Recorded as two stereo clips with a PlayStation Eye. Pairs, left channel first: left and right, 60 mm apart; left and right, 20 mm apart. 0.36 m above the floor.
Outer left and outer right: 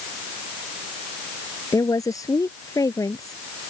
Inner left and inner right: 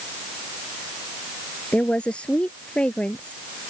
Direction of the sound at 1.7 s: 70° left (ahead or behind).